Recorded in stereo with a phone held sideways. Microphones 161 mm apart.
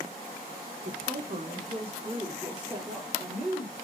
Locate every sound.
0.8 s a woman speaking: 60° right (ahead or behind), 0.9 m; by 3.7 s 15° right (ahead or behind), 2 m